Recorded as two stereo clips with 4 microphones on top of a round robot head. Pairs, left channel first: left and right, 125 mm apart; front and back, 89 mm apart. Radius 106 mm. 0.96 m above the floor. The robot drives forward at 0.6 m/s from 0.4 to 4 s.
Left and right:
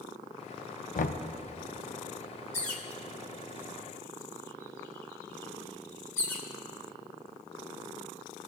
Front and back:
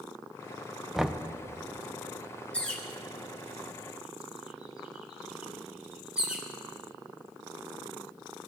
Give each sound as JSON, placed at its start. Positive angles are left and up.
{"t": 0.9, "sound": "knocking", "azimuth_deg": 90, "distance_m": 0.6}
{"t": 2.5, "sound": "a bird", "azimuth_deg": 75, "distance_m": 2.0}